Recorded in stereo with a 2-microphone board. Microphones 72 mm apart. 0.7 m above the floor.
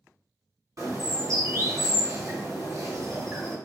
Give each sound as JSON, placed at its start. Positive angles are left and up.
{"t": 0.8, "sound": "a bird", "side_deg": -50, "distance_m": 1.8}